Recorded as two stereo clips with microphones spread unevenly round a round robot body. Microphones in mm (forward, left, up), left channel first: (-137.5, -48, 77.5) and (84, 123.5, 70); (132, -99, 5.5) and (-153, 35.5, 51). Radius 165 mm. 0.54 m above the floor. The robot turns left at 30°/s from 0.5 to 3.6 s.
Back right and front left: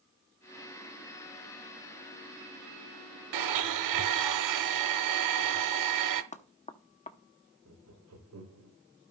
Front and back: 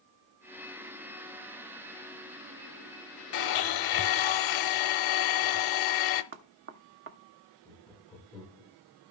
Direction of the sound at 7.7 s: 60° left.